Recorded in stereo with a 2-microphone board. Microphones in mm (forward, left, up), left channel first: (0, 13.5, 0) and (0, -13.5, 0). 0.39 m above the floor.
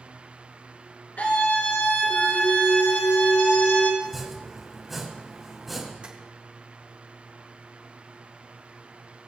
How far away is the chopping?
About 2.5 m.